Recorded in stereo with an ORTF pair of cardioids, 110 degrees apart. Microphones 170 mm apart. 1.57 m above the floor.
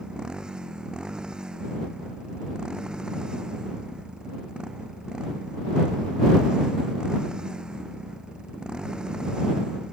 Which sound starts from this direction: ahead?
A motorcycle, at 0.0 s.